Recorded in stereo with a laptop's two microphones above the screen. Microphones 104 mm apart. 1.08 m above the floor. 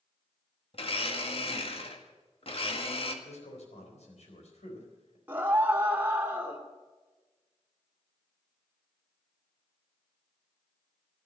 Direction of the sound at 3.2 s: 90° left.